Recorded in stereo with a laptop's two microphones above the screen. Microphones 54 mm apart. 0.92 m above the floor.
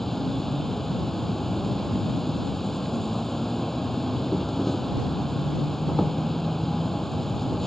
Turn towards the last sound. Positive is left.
turn(degrees=5)  # may be behind; listen again after turning